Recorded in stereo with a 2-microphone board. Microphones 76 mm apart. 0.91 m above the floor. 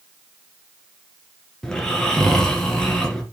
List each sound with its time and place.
1.6 s snoring: 10° left (ahead or behind), 2 m